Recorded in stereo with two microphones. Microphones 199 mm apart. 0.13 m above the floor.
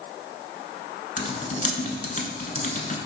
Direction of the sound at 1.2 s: 40° left (ahead or behind).